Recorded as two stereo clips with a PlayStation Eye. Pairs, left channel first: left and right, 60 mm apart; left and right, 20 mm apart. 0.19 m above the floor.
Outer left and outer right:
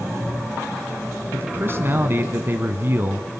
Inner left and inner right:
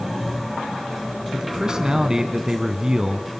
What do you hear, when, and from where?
1.3 s a man speaking: 40° right (ahead or behind), 1.5 m